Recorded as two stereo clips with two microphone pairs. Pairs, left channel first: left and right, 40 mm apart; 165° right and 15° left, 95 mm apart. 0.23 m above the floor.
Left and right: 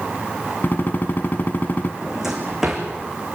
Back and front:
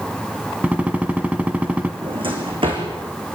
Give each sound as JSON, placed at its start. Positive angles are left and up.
{"t": 0.6, "sound": "a gunshot", "azimuth_deg": 90, "distance_m": 1.6}
{"t": 2.0, "sound": "a drawer", "azimuth_deg": -10, "distance_m": 5.5}